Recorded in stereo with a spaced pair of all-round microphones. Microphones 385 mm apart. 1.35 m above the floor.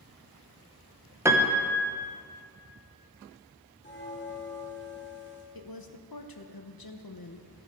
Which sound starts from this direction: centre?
A piano, at 1.2 s.